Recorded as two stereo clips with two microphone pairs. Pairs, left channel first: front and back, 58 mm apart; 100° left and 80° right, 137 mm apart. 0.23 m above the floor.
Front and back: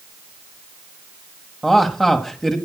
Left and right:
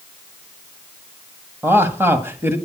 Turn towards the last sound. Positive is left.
turn(degrees=-60)